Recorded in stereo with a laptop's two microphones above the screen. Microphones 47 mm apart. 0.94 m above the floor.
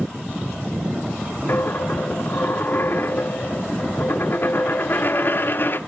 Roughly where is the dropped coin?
Left.